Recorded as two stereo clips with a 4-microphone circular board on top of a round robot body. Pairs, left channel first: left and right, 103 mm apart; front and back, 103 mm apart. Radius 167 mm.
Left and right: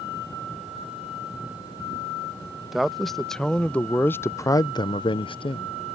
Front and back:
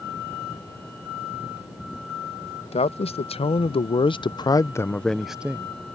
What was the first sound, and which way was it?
A man speaking, straight ahead.